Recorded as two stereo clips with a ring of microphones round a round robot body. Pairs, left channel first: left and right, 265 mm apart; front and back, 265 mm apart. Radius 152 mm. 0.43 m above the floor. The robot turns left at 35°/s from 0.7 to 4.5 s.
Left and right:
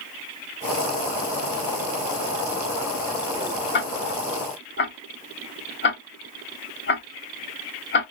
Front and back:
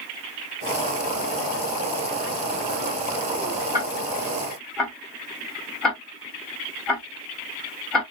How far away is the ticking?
About 1.2 m.